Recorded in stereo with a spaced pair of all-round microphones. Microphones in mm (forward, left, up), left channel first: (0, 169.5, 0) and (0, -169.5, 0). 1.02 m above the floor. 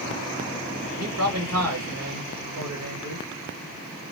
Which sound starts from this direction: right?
A man speaking, at 1.0 s.